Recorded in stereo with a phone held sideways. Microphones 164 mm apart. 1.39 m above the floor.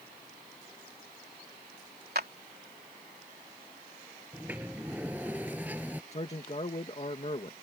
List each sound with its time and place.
2.1 s a clap: 80° right
4.3 s a sliding door: 10° right (ahead or behind)
6.1 s a man speaking: 40° left (ahead or behind)